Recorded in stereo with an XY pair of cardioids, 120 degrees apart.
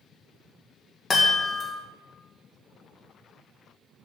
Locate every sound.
1.1 s a chime: 25° left, 2 m